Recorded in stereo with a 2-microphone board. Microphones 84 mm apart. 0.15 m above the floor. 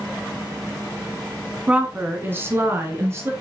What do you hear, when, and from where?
1.7 s a woman speaking: 15° right (ahead or behind), 1.2 m; by 3.3 s 35° right (ahead or behind), 2.0 m